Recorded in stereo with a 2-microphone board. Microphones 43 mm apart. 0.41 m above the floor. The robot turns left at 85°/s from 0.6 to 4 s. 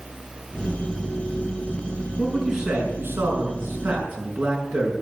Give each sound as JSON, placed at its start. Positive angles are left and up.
{"t": 2.2, "sound": "a man speaking", "azimuth_deg": 20, "distance_m": 5.5}